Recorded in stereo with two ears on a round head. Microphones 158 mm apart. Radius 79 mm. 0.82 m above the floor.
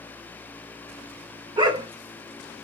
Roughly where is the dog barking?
Right.